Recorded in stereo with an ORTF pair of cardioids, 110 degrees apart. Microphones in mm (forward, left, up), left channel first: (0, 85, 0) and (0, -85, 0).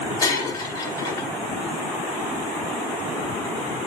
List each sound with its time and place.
0.2 s breaking glass: 25° left, 3 m